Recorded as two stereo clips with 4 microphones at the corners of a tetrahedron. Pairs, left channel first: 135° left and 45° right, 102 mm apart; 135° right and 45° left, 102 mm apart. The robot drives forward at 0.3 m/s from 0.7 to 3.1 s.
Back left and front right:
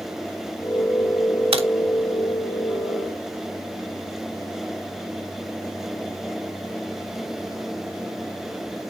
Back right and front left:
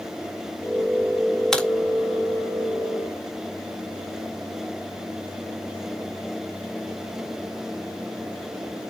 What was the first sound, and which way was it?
A crack, 50° right.